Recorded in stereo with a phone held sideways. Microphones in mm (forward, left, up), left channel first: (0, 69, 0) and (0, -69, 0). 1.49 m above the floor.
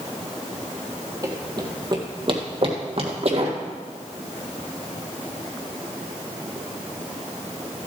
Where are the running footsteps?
30° right (ahead or behind), 2.5 m; by 3.6 s 55° right (ahead or behind), 2.5 m.